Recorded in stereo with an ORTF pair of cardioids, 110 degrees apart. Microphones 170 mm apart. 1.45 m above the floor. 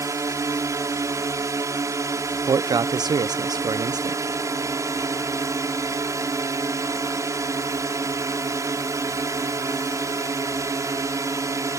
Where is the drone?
20° right.